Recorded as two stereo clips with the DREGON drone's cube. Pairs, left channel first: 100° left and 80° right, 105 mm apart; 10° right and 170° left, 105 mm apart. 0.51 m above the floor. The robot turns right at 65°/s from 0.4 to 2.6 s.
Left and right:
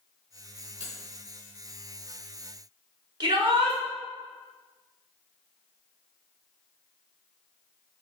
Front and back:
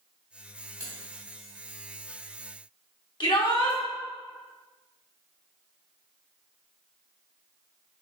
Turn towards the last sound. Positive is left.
turn(degrees=-45)